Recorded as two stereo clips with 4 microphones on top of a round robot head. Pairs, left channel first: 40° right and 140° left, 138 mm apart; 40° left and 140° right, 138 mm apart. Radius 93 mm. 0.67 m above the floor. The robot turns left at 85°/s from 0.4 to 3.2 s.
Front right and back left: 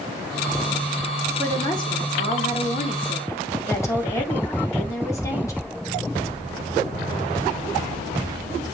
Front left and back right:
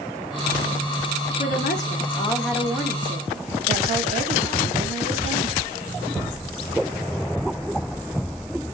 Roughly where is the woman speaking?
Ahead left.